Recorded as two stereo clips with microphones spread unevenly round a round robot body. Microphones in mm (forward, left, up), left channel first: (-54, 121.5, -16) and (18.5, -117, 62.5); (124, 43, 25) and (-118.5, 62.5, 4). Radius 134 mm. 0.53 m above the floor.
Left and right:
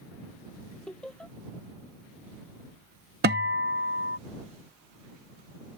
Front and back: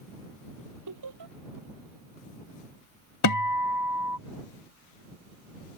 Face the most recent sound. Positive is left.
turn(degrees=-20)